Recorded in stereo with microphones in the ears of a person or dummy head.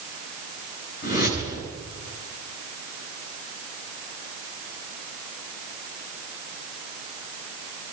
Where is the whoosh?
55° left (ahead or behind), 9 m.